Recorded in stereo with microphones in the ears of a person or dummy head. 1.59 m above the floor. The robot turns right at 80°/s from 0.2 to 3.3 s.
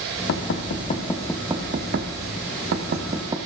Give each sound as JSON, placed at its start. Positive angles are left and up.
{"t": 0.3, "sound": "knocking", "side_deg": 70, "distance_m": 1.6}